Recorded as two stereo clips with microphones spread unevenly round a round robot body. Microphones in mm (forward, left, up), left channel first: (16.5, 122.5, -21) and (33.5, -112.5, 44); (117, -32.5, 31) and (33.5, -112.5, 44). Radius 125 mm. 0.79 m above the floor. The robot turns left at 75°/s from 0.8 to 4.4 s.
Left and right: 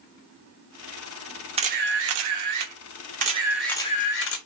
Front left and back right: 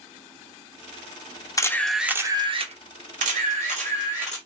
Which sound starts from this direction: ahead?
A camera shutter, at 1.6 s.